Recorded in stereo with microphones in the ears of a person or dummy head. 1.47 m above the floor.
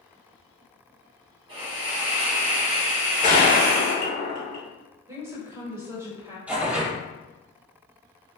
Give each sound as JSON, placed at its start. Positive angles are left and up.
{"t": 1.5, "sound": "a hiss", "side_deg": -30, "distance_m": 1.2}
{"t": 3.2, "sound": "a gunshot", "side_deg": 45, "distance_m": 1.5}
{"t": 5.1, "sound": "a woman speaking", "side_deg": -15, "distance_m": 1.2}
{"t": 6.5, "sound": "tearing paper", "side_deg": -5, "distance_m": 1.2}